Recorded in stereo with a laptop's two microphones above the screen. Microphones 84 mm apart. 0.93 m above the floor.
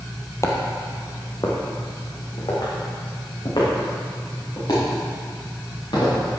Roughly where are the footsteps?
Left.